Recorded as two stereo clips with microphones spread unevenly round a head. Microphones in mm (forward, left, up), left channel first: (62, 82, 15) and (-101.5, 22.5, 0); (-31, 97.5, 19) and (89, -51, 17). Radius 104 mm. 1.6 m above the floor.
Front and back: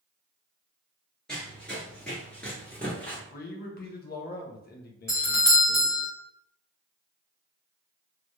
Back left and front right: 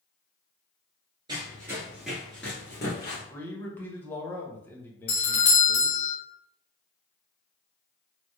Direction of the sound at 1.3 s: 45° right.